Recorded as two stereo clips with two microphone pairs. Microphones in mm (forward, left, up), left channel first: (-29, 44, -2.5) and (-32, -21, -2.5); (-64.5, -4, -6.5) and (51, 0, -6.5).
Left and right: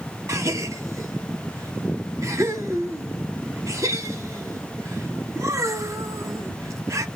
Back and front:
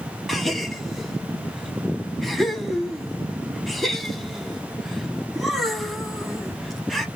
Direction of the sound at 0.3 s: 90° right.